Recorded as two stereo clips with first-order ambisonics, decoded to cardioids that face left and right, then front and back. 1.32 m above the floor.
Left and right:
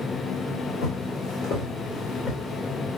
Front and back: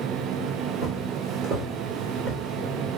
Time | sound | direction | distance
0.8 | footsteps | 120° left | 2.5 m